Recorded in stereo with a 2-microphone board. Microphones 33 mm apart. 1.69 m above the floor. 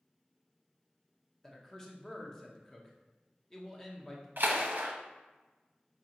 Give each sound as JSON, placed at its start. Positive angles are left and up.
{"t": 1.4, "sound": "a man speaking", "side_deg": 15, "distance_m": 0.8}
{"t": 4.4, "sound": "a splash", "side_deg": -65, "distance_m": 0.7}